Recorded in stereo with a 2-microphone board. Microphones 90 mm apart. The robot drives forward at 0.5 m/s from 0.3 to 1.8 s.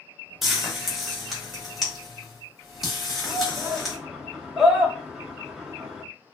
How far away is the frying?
About 0.9 m.